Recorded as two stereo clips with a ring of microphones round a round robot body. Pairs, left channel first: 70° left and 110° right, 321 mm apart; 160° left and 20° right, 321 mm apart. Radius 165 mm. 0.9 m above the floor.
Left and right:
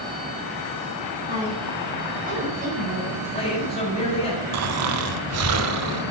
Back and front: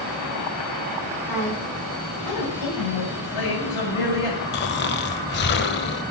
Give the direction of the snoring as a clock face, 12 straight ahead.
5 o'clock.